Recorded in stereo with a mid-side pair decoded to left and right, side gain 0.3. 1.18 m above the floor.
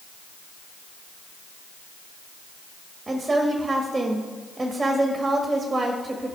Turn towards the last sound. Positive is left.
turn(degrees=-35)